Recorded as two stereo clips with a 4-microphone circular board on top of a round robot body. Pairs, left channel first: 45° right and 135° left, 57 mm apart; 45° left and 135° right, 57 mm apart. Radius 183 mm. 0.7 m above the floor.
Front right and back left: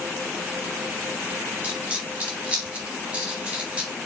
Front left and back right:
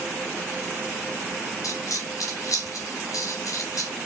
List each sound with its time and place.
1.6 s a dropped coin: 65° left, 3 m